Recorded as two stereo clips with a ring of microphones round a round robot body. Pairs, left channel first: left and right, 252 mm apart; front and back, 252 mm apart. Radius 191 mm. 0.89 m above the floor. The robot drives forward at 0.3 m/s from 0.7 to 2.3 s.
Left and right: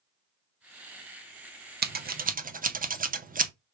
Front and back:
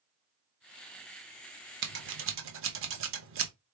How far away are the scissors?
About 0.7 m.